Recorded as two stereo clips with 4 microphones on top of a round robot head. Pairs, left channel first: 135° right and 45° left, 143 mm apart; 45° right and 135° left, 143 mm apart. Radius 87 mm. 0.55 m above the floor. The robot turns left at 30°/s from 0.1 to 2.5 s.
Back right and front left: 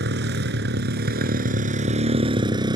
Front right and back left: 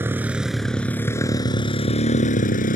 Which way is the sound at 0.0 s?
55° left.